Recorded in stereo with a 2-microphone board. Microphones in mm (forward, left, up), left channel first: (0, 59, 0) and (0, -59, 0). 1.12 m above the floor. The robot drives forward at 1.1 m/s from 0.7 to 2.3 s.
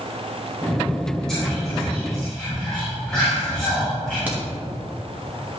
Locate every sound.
1.3 s whispering: 5° left (ahead or behind), 2 m
4.3 s a crack: 15° right (ahead or behind), 1.6 m